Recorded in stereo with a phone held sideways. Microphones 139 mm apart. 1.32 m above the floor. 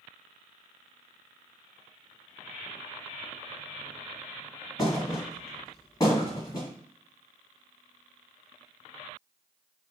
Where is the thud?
25° left (ahead or behind), 1.3 m.